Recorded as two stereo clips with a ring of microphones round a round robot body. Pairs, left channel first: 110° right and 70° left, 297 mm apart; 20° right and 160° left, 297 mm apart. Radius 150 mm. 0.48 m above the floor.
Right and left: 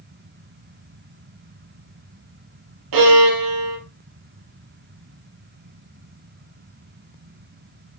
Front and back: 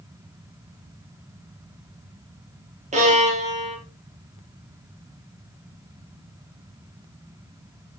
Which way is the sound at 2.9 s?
90° left.